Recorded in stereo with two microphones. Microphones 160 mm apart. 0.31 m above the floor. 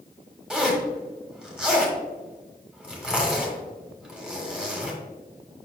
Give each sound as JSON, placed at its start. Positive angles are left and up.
{"t": 0.5, "sound": "a zipper", "side_deg": -5, "distance_m": 1.4}